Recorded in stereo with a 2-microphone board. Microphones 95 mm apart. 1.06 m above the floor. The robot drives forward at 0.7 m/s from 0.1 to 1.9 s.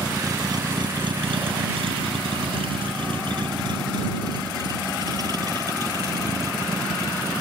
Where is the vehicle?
35° right (ahead or behind).